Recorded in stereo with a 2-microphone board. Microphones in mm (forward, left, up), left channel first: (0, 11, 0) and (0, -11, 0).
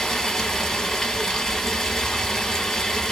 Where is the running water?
15° left (ahead or behind), 1.1 m.